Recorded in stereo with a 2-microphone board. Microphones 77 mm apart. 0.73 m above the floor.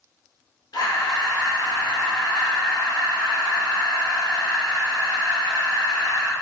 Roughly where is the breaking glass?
No breaking glass in this recording.